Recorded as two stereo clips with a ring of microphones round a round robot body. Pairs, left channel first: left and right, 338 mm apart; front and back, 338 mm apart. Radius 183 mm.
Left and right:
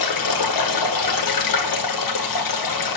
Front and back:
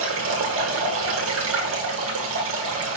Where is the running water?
120° left, 1.8 m.